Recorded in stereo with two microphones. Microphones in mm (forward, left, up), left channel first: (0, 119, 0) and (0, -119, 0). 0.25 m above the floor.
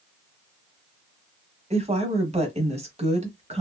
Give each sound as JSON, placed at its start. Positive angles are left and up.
{"t": 1.7, "sound": "a woman speaking", "side_deg": -25, "distance_m": 1.0}